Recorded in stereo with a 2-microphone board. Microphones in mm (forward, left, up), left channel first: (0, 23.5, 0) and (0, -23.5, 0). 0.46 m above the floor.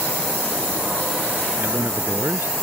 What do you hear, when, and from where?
1.6 s a man speaking: 55° right (ahead or behind)